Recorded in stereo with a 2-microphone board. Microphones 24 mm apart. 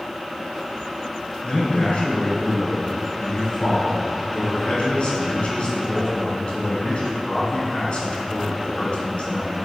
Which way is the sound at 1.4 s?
45° left (ahead or behind).